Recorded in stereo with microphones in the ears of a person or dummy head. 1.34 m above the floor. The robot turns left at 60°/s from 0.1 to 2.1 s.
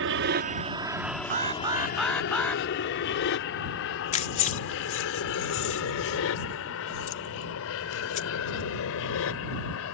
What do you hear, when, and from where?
0.0 s an aircraft: 60° right (ahead or behind); by 10.0 s 65° left (ahead or behind)
1.3 s an alarm: 135° right; by 2.6 s 175° left
4.1 s keys jangling: 30° left (ahead or behind)